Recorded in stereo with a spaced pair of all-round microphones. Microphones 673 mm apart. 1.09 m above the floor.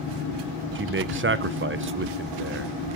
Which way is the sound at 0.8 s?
20° right (ahead or behind).